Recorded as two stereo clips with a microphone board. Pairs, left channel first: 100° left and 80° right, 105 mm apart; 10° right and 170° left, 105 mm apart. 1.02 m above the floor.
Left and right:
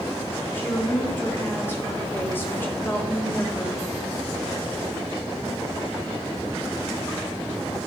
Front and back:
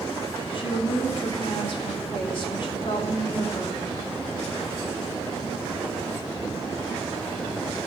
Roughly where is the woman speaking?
Ahead left.